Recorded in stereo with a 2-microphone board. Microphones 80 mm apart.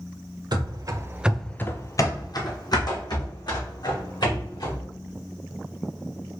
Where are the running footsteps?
65° right (ahead or behind), 0.9 m; by 4.8 s 70° left (ahead or behind), 3.5 m.